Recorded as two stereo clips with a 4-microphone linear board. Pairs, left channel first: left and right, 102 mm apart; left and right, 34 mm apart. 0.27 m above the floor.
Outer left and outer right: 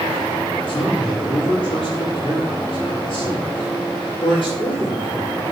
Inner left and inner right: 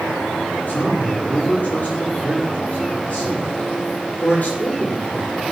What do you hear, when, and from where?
0.7 s a man speaking: 60° left (ahead or behind), 7.5 m